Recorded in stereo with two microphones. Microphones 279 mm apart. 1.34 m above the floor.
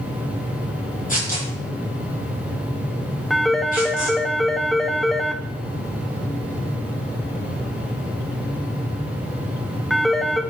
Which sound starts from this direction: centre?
A phone ringing, at 3.3 s.